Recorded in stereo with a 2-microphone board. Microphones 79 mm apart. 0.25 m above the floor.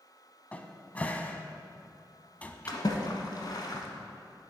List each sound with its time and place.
0.5 s a cupboard door: 20° left (ahead or behind), 0.6 m
2.7 s a splash: 55° left (ahead or behind), 1.1 m